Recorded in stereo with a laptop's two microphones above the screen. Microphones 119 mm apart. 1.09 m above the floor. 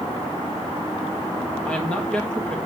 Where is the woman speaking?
10° left (ahead or behind), 1.8 m.